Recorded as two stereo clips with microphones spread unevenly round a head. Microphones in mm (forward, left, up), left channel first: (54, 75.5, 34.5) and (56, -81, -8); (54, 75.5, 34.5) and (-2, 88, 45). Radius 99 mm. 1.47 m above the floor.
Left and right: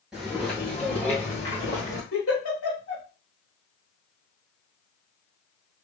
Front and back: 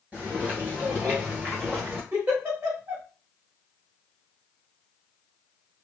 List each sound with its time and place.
0.1 s footsteps: 160° left, 1.6 m; by 2.0 s 140° left, 2 m
2.1 s a giggle: 120° left, 3 m